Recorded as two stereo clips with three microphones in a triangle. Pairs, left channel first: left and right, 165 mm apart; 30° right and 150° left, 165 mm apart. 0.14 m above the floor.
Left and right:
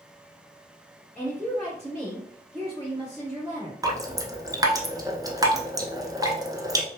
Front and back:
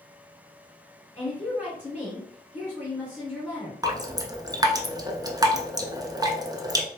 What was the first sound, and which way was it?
A woman speaking, 110° right.